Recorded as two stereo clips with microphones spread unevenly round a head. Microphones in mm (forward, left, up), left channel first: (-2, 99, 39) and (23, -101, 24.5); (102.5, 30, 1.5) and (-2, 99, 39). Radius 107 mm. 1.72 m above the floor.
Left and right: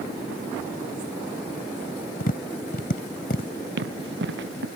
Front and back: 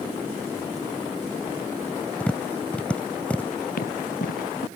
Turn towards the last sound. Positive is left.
turn(degrees=-45)